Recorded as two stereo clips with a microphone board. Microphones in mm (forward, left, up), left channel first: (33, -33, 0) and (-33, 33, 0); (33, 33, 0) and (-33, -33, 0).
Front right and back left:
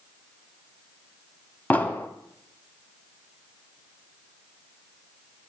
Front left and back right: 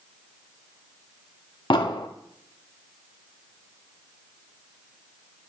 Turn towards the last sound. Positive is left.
turn(degrees=25)